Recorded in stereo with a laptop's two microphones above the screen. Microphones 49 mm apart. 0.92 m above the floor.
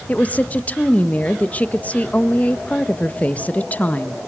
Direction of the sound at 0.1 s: 30° left (ahead or behind).